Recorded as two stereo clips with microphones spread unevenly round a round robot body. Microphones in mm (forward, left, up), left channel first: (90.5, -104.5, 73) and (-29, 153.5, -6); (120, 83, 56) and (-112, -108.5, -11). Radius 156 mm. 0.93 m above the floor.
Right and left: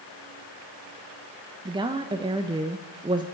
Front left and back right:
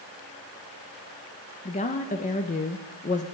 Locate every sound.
1.6 s a woman speaking: 110° left, 0.6 m